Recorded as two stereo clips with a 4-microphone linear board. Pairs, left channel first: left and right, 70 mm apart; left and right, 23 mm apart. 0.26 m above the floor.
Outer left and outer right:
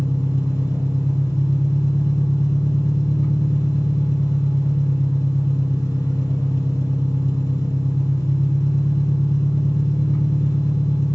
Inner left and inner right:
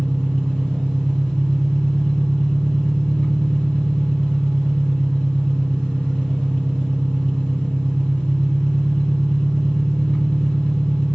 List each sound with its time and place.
0.0 s an engine running: 65° left (ahead or behind), 1.5 m